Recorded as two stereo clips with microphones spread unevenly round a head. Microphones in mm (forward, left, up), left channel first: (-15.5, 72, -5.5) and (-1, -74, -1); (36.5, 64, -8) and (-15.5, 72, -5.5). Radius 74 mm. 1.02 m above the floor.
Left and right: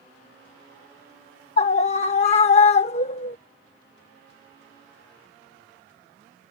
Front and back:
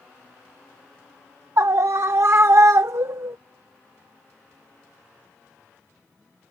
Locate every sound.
1.6 s a scream: 140° left